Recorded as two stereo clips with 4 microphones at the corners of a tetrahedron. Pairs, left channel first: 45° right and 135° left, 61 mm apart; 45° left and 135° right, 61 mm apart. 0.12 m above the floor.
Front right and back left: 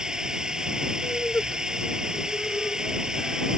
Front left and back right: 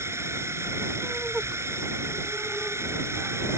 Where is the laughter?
65° right.